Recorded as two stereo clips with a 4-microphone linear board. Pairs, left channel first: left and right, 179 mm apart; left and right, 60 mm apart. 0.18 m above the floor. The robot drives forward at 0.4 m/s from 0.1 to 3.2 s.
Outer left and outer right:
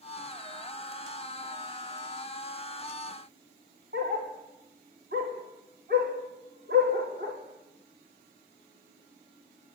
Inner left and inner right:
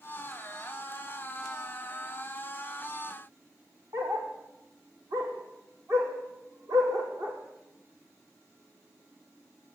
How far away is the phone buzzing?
No phone buzzing in this recording.